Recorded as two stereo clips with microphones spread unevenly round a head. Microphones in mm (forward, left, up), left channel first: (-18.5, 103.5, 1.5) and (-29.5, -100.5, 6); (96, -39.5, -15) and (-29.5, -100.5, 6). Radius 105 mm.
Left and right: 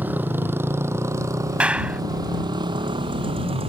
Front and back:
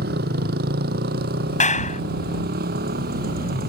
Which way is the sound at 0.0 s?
175° right.